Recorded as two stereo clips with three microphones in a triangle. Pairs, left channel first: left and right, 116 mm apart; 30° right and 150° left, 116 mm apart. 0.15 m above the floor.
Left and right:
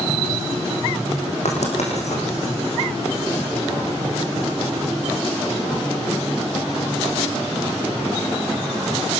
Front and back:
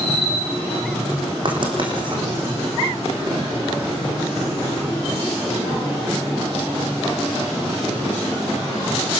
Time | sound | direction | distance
1.4 | writing | 105° left | 6 m